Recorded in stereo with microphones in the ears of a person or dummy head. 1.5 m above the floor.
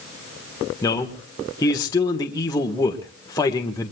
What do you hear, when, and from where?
0.8 s a man speaking: 20° left (ahead or behind), 1.5 m